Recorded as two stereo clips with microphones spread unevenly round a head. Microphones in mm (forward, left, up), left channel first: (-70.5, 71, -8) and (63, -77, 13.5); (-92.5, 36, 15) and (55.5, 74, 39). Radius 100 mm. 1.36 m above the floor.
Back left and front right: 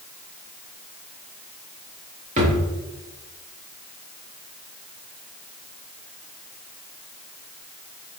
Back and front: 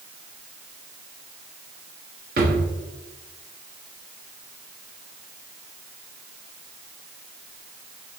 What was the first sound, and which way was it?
A drawer, straight ahead.